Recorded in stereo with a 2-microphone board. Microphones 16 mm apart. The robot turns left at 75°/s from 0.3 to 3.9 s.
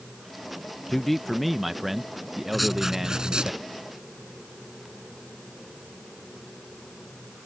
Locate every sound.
0.9 s a man speaking: 15° left (ahead or behind); by 3.5 s 5° right (ahead or behind)
2.5 s writing: straight ahead; by 3.6 s 80° right